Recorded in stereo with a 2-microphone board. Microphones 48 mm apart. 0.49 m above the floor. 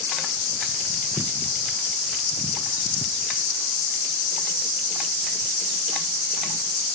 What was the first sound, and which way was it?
Only background noise.